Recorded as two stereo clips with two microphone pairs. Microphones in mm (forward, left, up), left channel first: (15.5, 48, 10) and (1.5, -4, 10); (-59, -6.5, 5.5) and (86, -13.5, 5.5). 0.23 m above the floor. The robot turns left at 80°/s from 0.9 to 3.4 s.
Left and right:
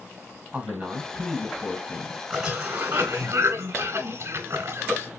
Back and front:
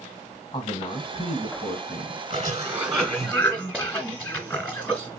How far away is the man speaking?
About 1.3 m.